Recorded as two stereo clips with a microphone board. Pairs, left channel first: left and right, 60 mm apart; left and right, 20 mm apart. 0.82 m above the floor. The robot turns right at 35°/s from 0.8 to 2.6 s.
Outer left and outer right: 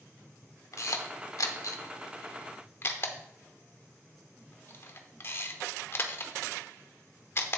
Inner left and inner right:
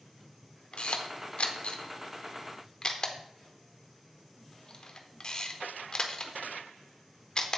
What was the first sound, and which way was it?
A camera shutter, 70° left (ahead or behind).